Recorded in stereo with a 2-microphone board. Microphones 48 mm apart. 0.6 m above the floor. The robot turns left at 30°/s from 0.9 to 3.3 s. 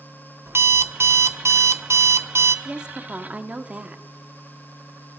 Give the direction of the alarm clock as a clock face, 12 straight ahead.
2 o'clock.